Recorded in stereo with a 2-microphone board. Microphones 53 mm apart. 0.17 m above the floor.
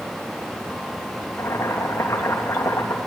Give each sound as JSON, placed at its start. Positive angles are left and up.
{"t": 1.4, "sound": "boiling", "side_deg": 55, "distance_m": 3.5}